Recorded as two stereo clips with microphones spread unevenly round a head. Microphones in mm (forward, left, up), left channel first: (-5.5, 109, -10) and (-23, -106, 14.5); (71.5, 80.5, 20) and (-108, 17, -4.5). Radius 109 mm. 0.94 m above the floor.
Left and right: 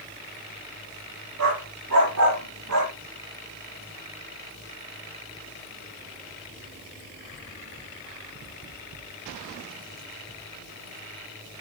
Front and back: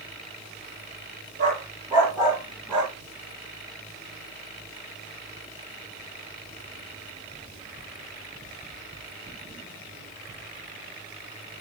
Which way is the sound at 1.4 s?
95° right.